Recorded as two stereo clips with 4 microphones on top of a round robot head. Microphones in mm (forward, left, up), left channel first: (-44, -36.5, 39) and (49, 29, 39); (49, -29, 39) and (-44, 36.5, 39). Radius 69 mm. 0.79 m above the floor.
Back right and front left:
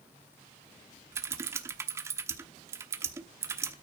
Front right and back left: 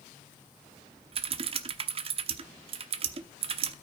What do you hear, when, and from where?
1.1 s typing on a keyboard: 105° left, 0.9 m